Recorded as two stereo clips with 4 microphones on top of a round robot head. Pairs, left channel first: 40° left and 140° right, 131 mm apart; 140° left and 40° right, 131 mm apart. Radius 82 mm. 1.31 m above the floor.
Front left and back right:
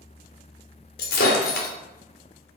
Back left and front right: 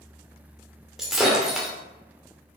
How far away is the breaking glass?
About 2.5 m.